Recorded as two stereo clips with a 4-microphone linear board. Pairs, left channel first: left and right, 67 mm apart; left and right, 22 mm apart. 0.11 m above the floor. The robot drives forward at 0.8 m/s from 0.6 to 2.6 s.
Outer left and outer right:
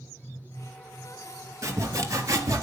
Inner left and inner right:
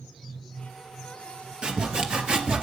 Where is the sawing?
45° right (ahead or behind), 2.0 m; by 2.6 s 55° right (ahead or behind), 1.7 m.